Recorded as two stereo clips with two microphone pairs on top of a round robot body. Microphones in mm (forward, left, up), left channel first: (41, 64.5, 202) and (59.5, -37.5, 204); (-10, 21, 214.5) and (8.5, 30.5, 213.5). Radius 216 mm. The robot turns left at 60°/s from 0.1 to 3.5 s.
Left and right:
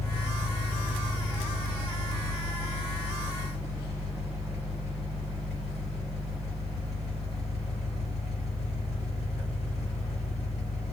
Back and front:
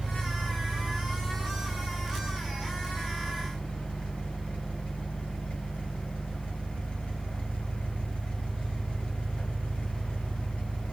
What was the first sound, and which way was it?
An engine running, 35° left.